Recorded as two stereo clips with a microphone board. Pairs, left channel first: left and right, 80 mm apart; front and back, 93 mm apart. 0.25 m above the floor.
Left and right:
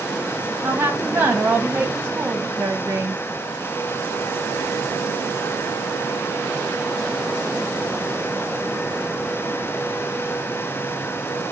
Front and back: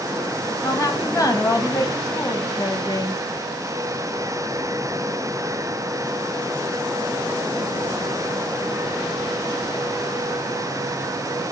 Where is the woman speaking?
35° right, 1.6 m.